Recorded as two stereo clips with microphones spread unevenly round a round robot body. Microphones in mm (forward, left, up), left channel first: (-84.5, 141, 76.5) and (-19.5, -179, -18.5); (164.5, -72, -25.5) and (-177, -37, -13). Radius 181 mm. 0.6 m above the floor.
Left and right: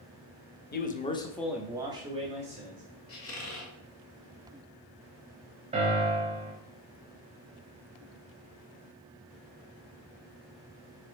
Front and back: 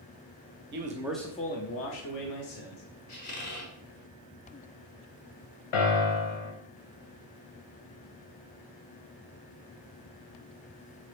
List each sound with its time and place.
0.7 s a man speaking: 165° left, 0.7 m; by 2.8 s 20° right, 1.6 m
3.1 s a squeak: 45° left, 1.2 m
5.7 s a piano: straight ahead, 1.1 m